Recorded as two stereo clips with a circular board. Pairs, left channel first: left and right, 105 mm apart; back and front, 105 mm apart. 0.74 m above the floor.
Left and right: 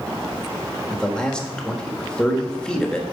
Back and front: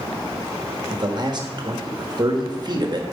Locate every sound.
0.9 s a man speaking: 10° left, 1.4 m